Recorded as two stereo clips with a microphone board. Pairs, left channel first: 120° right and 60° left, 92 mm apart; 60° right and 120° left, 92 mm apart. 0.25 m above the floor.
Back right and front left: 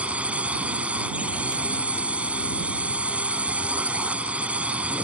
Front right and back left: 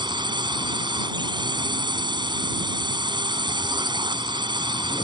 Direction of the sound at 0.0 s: 135° left.